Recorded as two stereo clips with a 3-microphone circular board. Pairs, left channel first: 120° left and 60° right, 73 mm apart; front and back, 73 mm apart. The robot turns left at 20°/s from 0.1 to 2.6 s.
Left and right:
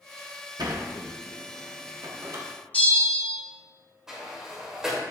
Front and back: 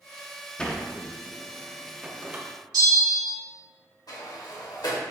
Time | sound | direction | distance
0.6 | a sliding door | 75° right | 0.9 m
2.7 | a bell | 175° right | 2 m
4.1 | a sliding door | 20° left | 1.7 m